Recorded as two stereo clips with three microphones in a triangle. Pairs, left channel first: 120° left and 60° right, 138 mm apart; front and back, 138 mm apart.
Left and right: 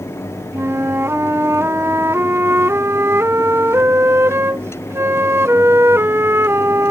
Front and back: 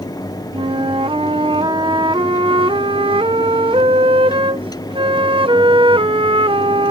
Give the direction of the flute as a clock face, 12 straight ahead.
4 o'clock.